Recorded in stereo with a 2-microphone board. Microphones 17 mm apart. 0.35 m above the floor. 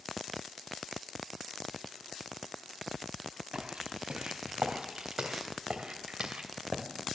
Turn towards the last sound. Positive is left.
turn(degrees=-80)